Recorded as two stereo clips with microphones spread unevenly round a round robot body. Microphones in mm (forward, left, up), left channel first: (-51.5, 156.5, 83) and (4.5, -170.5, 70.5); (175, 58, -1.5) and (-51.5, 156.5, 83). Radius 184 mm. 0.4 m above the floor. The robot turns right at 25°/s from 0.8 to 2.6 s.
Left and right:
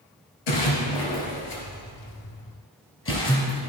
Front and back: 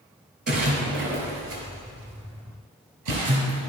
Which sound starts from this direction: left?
A splash, at 0.5 s.